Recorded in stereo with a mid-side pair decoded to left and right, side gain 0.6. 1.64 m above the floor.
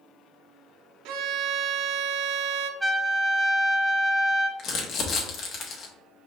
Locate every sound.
1.1 s a violin: 70° right, 0.6 m
2.8 s a trumpet: straight ahead, 2 m
4.6 s crumpling: 50° left, 1.3 m